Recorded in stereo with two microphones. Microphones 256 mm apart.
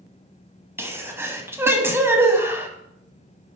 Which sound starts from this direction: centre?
A sneeze, at 0.8 s.